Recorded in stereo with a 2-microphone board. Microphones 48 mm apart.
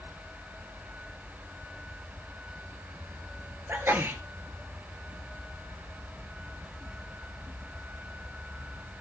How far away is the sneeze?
About 3 m.